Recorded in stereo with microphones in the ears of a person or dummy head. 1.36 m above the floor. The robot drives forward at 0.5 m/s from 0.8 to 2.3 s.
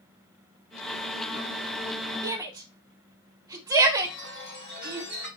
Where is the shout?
20° right (ahead or behind), 0.7 m.